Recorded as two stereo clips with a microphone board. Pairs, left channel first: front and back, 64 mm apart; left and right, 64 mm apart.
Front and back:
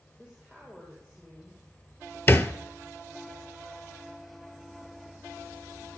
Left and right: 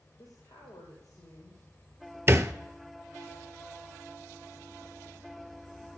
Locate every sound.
0.2 s a woman speaking: 85° left, 4 m; by 2.2 s 75° left, 6.5 m
2.3 s a thud: 45° right, 0.7 m